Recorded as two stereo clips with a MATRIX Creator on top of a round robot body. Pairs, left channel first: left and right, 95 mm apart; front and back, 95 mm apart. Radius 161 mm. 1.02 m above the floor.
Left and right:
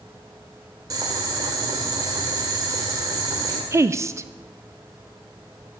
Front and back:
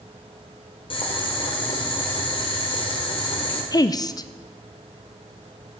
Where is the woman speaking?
35° right, 0.6 m.